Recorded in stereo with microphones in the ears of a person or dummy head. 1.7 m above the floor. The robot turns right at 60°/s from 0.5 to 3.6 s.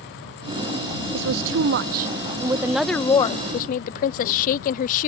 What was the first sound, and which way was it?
A woman speaking, 70° right (ahead or behind).